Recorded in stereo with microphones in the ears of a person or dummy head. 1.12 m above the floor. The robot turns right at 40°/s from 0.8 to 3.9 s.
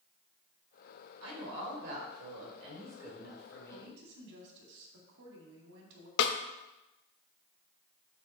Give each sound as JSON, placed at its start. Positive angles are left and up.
{"t": 1.2, "sound": "a woman speaking", "azimuth_deg": -85, "distance_m": 3.5}
{"t": 3.7, "sound": "a woman speaking", "side_deg": -75, "distance_m": 2.0}
{"t": 6.2, "sound": "a snare drum", "side_deg": 60, "distance_m": 0.7}